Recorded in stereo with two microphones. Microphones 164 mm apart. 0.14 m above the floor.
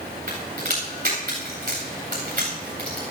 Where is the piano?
I don't hear a piano.